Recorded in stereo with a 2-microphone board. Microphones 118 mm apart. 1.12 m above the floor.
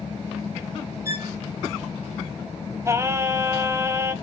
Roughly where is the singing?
Right.